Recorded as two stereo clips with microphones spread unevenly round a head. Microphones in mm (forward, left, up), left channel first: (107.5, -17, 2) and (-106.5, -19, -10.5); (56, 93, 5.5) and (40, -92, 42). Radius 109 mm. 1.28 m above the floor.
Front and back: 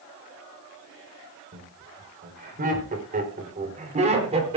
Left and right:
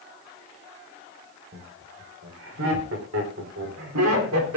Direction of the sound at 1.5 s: 135° right.